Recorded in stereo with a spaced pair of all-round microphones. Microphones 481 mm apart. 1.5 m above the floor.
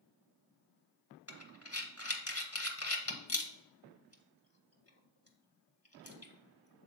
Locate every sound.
1.3 s breathing: 30° left (ahead or behind), 0.9 m